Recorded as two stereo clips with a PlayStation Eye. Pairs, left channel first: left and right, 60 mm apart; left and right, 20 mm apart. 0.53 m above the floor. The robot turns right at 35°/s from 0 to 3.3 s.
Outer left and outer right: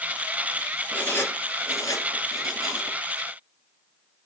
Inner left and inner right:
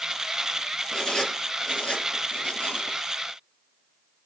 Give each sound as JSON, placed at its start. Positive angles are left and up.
{"t": 0.9, "sound": "writing", "side_deg": 30, "distance_m": 9.0}